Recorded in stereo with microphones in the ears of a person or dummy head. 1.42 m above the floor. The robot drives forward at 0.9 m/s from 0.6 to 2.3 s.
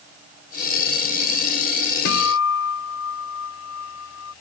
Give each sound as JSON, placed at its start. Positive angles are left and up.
{"t": 2.0, "sound": "a guitar", "side_deg": 60}